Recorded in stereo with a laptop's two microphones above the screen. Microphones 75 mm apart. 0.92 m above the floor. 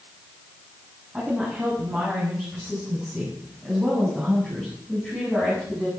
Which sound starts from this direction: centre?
A woman speaking, at 1.1 s.